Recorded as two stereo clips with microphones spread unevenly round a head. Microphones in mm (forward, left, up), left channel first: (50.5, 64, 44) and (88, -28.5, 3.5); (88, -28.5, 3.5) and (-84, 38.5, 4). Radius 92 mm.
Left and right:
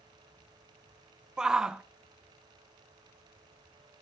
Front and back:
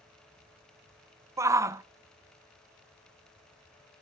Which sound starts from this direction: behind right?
A shout, at 1.4 s.